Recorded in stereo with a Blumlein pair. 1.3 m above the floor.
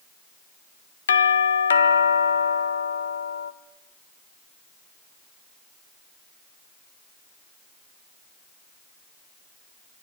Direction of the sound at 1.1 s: 65° left.